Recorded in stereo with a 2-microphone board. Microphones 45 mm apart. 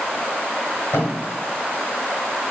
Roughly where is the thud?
Left.